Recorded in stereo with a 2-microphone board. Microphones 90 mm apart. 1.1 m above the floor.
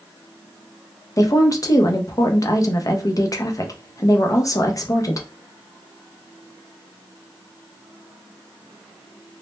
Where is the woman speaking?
35° left (ahead or behind), 0.5 m.